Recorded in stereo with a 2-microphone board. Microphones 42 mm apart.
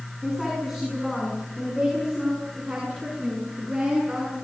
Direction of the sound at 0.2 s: 5° right (ahead or behind).